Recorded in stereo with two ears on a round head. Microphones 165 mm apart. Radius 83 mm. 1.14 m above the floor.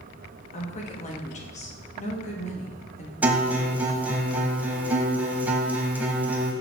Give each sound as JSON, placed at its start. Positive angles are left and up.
{"t": 0.5, "sound": "a woman speaking", "side_deg": 40, "distance_m": 1.3}
{"t": 3.2, "sound": "a guitar", "side_deg": -10, "distance_m": 1.0}